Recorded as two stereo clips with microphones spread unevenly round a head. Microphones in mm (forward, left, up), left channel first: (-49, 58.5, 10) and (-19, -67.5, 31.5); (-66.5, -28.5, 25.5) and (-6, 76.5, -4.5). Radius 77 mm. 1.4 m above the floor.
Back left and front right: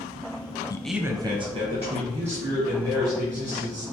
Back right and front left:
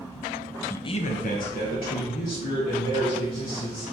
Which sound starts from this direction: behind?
A man speaking, at 0.7 s.